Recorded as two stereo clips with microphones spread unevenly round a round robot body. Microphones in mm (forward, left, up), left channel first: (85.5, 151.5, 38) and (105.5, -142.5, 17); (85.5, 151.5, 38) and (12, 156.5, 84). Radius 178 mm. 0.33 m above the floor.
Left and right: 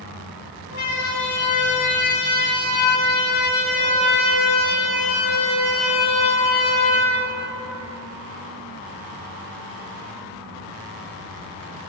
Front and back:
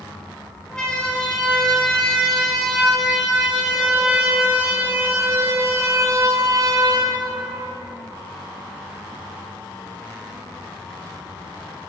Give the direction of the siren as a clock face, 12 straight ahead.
10 o'clock.